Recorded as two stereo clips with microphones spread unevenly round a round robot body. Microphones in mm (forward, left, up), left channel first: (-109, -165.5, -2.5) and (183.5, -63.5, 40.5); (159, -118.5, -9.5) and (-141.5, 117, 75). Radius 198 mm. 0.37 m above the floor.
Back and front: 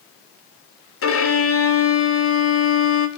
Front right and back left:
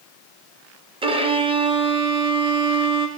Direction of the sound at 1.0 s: 135° right.